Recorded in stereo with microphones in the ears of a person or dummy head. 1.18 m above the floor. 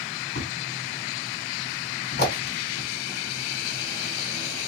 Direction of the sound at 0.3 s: 55° left (ahead or behind).